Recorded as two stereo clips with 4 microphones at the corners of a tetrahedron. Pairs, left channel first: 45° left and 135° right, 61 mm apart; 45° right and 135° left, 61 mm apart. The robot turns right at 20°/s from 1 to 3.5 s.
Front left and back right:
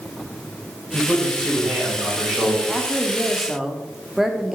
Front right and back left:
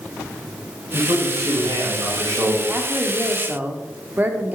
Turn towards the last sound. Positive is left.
turn(degrees=145)